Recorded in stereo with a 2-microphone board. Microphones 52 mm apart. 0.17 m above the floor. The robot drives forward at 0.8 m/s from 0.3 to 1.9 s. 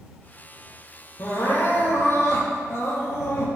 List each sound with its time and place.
1.2 s crying: 50° left (ahead or behind), 4.5 m; by 3.5 s 55° left (ahead or behind), 4.5 m